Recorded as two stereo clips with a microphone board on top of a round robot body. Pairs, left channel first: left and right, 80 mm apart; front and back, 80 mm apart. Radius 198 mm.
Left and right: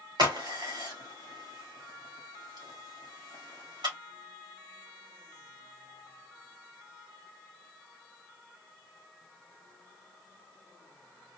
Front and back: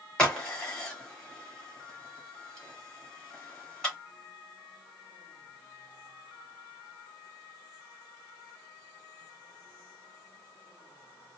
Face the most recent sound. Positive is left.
turn(degrees=-80)